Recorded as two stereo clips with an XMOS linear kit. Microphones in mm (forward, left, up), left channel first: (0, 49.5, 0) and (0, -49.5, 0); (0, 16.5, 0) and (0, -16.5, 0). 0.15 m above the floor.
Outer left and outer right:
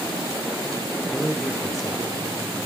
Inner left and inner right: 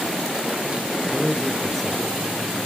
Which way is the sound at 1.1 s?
Centre (ahead or behind).